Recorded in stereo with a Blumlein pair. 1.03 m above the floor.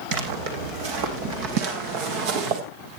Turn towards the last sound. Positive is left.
turn(degrees=-45)